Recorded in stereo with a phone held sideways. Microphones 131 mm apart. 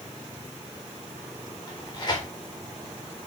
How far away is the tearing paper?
About 4 m.